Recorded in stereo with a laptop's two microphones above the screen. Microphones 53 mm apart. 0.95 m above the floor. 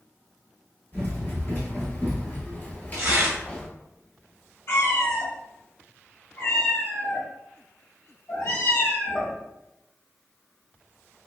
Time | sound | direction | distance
0.9 | running footsteps | 40° left (ahead or behind) | 1.4 m
2.9 | tearing paper | 55° right (ahead or behind) | 0.8 m
4.7 | a cat meowing | 50° left (ahead or behind) | 1.3 m